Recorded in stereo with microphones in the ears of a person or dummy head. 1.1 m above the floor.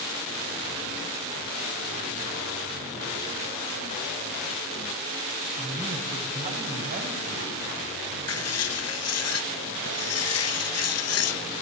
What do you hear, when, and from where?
5.6 s a man speaking: 30° right (ahead or behind), 6 m; by 7.5 s 50° right (ahead or behind), 7 m
8.3 s writing: 65° left (ahead or behind), 1.2 m